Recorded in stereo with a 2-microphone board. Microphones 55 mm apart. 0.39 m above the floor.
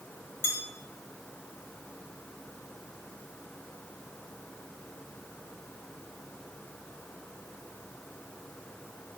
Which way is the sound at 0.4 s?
45° left (ahead or behind).